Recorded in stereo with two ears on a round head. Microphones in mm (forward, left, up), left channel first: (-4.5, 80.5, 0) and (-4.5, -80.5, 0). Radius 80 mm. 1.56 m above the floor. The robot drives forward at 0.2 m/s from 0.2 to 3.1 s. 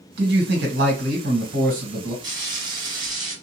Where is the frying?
20° right (ahead or behind), 1.2 m; by 3.3 s 25° right (ahead or behind), 1.1 m.